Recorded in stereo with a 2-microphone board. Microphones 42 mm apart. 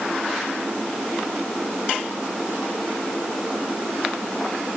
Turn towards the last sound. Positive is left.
No sound to turn to.